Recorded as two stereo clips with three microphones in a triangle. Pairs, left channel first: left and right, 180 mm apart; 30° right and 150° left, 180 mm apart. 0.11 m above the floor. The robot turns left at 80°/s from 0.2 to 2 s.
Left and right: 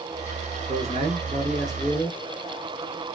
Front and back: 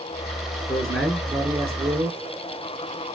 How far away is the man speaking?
About 1.9 m.